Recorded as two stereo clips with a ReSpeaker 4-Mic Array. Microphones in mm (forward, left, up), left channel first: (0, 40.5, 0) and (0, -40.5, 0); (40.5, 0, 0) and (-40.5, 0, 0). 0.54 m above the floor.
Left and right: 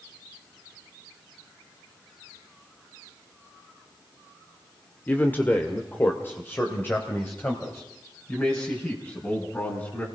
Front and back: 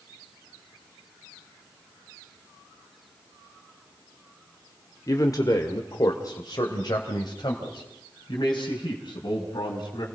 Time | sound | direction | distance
5.1 | a man speaking | 30° left | 1.4 m